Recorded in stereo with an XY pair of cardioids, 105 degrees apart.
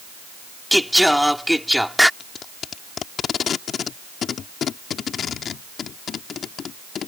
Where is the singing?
Straight ahead.